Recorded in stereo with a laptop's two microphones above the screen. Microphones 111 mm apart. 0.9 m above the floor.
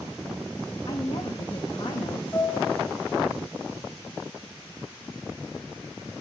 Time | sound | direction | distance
0.9 | a woman speaking | 50° left (ahead or behind) | 0.8 m
2.3 | a piano | 20° left (ahead or behind) | 3.5 m